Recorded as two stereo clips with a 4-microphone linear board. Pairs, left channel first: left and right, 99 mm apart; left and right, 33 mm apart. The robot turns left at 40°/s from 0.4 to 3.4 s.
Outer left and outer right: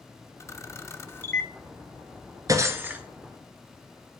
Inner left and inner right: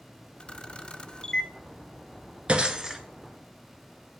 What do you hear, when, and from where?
0.4 s a camera shutter: 30° left (ahead or behind), 0.5 m; by 1.5 s 20° left (ahead or behind), 0.5 m
2.5 s breaking glass: 35° right (ahead or behind), 0.9 m; by 3.0 s 15° right (ahead or behind), 0.9 m